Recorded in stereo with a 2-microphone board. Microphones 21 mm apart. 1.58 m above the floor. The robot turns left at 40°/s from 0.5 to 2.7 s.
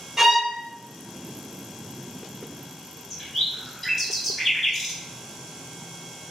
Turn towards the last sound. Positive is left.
turn(degrees=10)  # may be behind; listen again after turning